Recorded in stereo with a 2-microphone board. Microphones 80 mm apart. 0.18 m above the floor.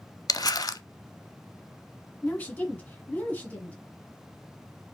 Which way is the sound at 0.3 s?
50° left (ahead or behind).